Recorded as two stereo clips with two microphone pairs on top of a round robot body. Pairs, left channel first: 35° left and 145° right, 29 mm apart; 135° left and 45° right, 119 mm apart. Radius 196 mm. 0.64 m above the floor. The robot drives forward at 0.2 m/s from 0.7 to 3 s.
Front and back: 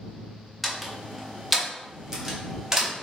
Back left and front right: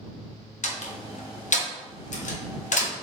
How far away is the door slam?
About 1.0 m.